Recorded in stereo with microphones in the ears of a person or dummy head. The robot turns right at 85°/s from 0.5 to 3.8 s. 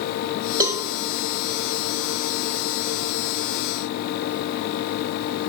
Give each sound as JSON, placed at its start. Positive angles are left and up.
{"t": 0.6, "sound": "a cowbell", "side_deg": -20, "distance_m": 0.5}